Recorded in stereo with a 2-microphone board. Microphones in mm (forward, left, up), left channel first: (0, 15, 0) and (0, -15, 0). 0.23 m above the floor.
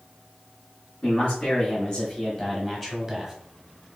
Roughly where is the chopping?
No chopping in this recording.